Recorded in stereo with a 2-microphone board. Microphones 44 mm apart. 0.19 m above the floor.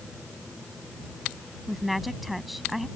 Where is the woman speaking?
Centre (ahead or behind).